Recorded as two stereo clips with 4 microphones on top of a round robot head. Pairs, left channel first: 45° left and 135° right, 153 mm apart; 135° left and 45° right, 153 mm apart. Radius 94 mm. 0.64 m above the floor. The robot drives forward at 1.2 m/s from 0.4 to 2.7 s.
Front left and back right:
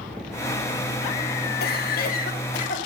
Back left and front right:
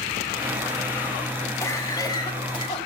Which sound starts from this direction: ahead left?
A cough, at 1.6 s.